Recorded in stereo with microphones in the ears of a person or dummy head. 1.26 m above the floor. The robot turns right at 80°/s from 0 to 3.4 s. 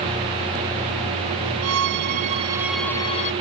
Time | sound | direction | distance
1.6 | a violin | 90° right | ?